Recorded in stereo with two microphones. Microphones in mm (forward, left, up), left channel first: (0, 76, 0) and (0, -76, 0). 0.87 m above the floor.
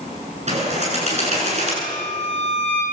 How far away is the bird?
About 9.5 m.